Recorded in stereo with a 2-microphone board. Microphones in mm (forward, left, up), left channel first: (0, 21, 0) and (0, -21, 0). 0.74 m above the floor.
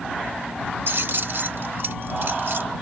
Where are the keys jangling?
60° right (ahead or behind).